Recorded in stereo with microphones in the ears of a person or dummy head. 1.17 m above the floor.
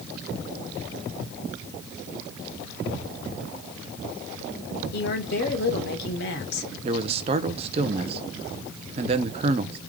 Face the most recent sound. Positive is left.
turn(degrees=-35)  # may be behind; listen again after turning